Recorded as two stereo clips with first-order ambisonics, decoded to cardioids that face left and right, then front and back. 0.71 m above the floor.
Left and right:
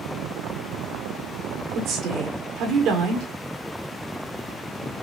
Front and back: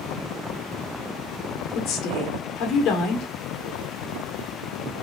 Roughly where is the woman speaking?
Ahead right.